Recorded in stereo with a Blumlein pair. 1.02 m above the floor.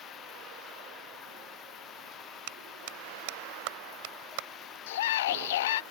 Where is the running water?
30° left.